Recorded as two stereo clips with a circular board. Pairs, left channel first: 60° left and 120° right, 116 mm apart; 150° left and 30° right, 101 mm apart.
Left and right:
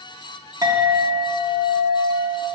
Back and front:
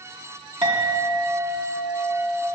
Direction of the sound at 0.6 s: 60° right.